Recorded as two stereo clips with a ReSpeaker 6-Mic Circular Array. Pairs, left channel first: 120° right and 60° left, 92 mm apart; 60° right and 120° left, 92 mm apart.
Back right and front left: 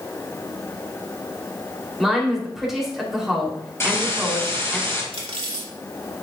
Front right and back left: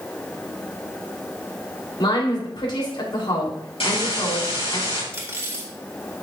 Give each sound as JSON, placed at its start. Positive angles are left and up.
{"t": 2.0, "sound": "a woman speaking", "azimuth_deg": -30, "distance_m": 3.0}
{"t": 3.8, "sound": "a hiss", "azimuth_deg": -60, "distance_m": 3.5}
{"t": 5.1, "sound": "cutlery clinking", "azimuth_deg": 55, "distance_m": 1.8}